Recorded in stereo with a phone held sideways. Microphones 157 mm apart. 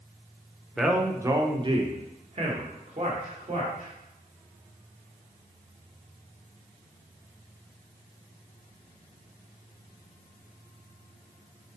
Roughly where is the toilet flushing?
No toilet flushing in this recording.